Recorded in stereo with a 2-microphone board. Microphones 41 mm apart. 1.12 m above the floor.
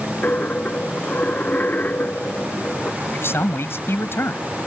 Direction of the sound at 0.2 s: 45° left (ahead or behind).